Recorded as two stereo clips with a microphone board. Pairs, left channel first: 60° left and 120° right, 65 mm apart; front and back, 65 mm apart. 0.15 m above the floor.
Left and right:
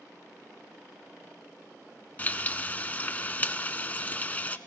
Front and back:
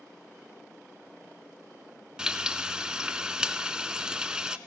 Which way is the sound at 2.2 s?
110° left.